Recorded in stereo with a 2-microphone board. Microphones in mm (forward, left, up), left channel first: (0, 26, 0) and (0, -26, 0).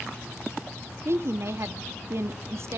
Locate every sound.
1.1 s a woman speaking: 55° right (ahead or behind), 0.8 m